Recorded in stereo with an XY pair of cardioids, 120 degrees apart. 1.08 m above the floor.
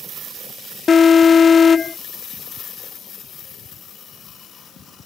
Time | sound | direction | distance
0.9 | an alarm | 35° left | ?